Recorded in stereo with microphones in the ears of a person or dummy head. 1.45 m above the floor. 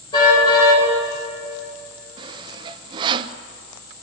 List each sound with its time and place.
0.1 s a car horn: 25° left (ahead or behind), 10 m
2.2 s sawing: 30° right (ahead or behind), 0.8 m